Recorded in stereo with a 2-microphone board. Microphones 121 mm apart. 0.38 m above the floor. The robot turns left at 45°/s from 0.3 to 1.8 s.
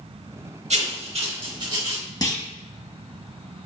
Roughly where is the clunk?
Left.